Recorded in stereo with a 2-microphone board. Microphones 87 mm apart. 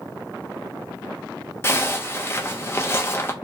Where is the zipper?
30° left (ahead or behind), 0.5 m.